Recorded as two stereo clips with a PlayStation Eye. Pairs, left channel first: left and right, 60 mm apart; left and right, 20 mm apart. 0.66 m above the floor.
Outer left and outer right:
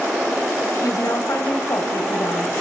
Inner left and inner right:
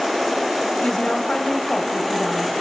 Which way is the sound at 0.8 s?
80° left.